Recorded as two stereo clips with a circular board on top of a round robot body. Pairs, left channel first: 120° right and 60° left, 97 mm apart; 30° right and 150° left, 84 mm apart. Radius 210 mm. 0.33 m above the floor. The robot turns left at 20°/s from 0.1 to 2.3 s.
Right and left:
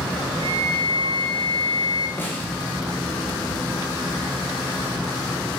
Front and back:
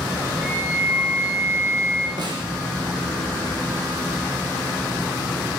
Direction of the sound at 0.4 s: 85° left.